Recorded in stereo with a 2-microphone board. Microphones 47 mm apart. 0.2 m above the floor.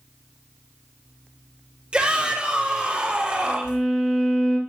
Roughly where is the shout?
Right.